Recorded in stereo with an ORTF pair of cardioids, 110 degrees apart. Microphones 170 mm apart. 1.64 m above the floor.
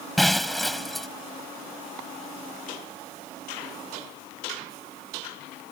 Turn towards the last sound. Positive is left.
turn(degrees=0)